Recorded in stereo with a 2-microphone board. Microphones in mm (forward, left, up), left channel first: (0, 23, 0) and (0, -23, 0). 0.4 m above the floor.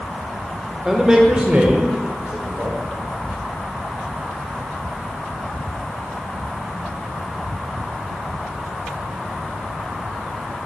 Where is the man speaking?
10° right (ahead or behind), 0.7 m; by 2.8 s 45° right (ahead or behind), 1.2 m.